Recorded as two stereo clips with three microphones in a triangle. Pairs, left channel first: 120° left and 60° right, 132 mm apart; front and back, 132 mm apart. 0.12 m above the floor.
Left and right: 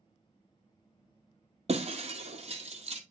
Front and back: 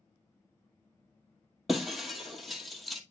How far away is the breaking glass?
About 1.1 m.